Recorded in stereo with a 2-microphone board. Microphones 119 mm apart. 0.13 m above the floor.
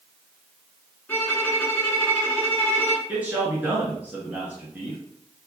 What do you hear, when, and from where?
1.1 s a violin: 15° left (ahead or behind), 1.4 m
3.1 s a man speaking: 15° right (ahead or behind), 1.8 m